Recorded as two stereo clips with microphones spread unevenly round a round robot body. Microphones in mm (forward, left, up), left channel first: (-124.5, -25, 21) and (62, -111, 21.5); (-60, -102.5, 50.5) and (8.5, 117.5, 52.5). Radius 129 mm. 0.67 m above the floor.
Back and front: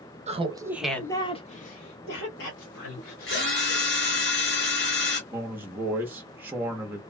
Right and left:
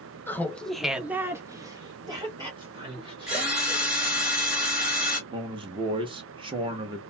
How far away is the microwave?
No microwave in this recording.